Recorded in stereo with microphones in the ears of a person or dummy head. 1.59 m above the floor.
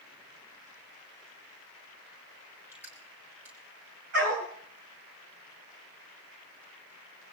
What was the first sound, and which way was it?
Crushing, 10° right (ahead or behind).